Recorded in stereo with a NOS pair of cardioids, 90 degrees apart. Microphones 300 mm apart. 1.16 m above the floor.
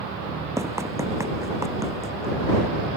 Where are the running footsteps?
10° right.